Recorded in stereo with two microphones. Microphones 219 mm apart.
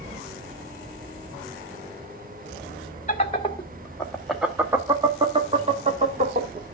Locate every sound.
3.1 s laughter: 30° left (ahead or behind), 1.3 m; by 6.6 s 40° right (ahead or behind), 1.9 m